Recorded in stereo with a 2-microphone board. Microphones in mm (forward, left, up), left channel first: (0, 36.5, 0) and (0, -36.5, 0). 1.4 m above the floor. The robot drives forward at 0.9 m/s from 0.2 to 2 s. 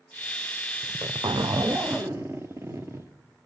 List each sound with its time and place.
0.8 s a zipper: 50° right (ahead or behind), 0.6 m; by 3.1 s 35° right (ahead or behind), 0.8 m